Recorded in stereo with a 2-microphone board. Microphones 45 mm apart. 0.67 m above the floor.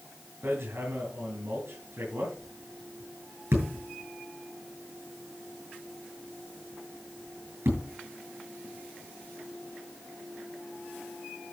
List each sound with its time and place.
0.4 s hammering: 60° right (ahead or behind), 7.5 m